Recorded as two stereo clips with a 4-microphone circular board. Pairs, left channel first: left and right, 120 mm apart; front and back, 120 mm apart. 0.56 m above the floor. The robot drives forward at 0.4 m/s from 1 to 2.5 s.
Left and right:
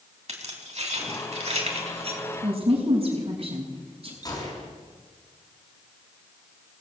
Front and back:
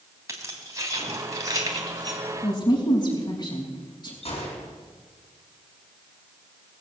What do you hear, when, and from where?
0.3 s keys jangling: 120° right, 3 m; by 2.2 s 125° right, 3.5 m
2.4 s a woman speaking: 55° right, 5 m
4.2 s a gunshot: 35° left, 5.5 m